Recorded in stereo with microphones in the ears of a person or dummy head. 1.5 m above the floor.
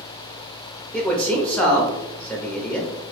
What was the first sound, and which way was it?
A man speaking, 5° left (ahead or behind).